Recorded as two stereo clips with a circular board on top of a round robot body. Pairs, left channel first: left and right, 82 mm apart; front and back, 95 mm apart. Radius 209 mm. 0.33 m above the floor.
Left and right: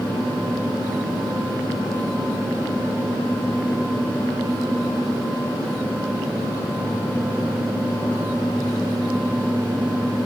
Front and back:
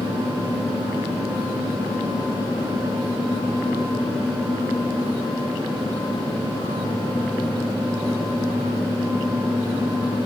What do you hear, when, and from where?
Only background noise.